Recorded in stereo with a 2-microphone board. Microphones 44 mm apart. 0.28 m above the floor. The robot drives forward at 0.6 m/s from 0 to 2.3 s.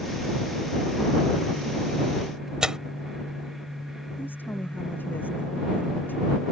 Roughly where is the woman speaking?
Left.